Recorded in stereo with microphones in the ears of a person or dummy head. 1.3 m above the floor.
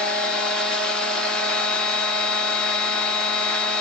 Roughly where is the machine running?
Centre.